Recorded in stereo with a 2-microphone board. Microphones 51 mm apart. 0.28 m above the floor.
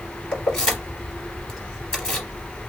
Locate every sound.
0.3 s keys jangling: 20° left (ahead or behind), 3 m